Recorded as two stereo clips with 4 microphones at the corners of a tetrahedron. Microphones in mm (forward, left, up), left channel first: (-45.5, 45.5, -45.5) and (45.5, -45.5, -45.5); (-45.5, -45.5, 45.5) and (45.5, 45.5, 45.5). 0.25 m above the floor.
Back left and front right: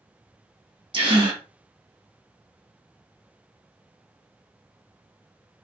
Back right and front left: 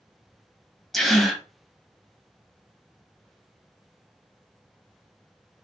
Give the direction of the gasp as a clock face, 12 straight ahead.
2 o'clock.